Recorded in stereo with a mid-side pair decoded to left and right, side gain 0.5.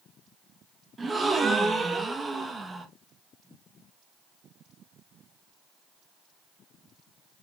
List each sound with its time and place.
1.0 s a gasp: 25° right, 1.4 m